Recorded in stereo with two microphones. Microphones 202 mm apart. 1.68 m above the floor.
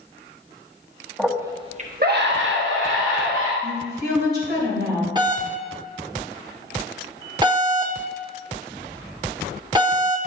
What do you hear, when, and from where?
1.2 s a scream: centre (ahead or behind), 1.1 m; by 3.5 s 85° right, 2.5 m
3.6 s a woman speaking: 55° right (ahead or behind), 3.5 m
5.2 s a doorbell: 20° right (ahead or behind), 0.8 m